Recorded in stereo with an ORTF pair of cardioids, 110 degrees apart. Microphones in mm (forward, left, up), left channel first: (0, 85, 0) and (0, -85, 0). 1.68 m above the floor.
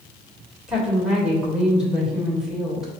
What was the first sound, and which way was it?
A woman speaking, 5° right.